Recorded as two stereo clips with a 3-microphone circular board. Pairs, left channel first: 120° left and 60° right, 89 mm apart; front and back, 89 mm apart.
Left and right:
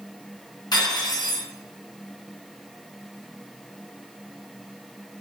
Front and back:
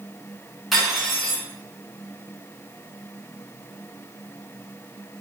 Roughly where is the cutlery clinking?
Left.